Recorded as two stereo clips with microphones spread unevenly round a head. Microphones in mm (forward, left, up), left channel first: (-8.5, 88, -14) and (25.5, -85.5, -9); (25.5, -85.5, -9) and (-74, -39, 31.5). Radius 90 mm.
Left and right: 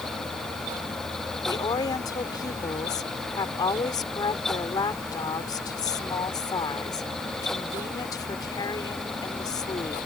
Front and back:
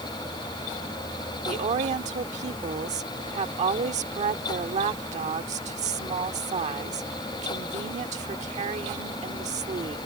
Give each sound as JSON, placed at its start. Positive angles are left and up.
{"t": 1.4, "sound": "a woman speaking", "azimuth_deg": 170}